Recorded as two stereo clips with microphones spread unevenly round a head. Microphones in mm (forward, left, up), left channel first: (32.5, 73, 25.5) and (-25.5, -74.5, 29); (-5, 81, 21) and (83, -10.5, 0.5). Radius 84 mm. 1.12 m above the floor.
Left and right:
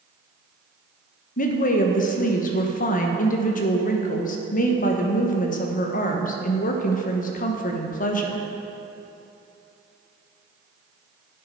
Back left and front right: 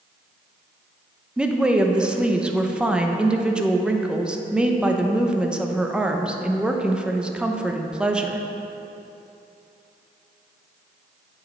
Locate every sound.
1.4 s a woman speaking: 35° left, 0.9 m